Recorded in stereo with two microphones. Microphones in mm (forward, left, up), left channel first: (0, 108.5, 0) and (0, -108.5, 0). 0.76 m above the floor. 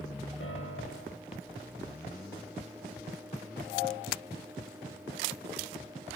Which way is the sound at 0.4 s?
80° left.